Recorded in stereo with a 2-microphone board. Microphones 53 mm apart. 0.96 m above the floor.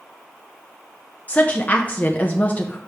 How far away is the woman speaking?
About 0.7 m.